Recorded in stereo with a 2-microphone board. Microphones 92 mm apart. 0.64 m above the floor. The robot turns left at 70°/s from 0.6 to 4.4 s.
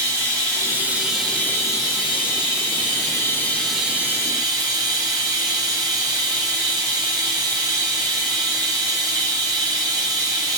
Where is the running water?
140° right, 2 m; by 10.6 s 50° right, 2 m.